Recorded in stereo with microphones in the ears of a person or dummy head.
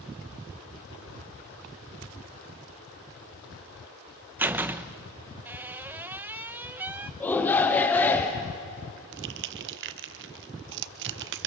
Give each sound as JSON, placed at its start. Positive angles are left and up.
{"t": 4.4, "sound": "a door slam", "side_deg": -15, "distance_m": 0.9}
{"t": 7.2, "sound": "a shout", "side_deg": 5, "distance_m": 1.1}
{"t": 9.1, "sound": "crushing", "side_deg": -70, "distance_m": 1.0}